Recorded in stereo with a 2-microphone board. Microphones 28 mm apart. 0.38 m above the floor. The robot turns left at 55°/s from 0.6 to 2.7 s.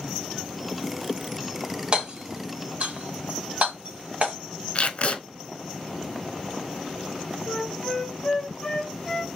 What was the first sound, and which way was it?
Hammering, 40° right (ahead or behind).